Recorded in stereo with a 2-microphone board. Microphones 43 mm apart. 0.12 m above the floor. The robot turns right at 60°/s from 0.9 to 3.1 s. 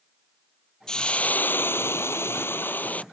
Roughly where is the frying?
Ahead.